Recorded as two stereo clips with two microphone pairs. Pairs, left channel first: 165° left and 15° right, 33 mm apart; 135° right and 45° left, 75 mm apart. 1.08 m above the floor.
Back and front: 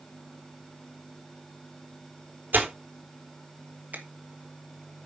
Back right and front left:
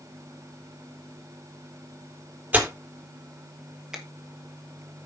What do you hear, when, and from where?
2.5 s tearing paper: 20° right, 3.5 m
3.9 s a finger snap: 35° right, 2 m